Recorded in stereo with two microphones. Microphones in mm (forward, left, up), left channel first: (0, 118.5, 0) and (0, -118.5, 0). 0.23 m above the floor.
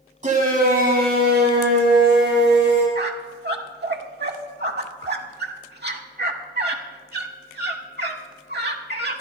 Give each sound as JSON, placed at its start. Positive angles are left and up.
{"t": 0.2, "sound": "a shout", "side_deg": -30, "distance_m": 1.6}
{"t": 3.0, "sound": "a squeak", "side_deg": -45, "distance_m": 0.9}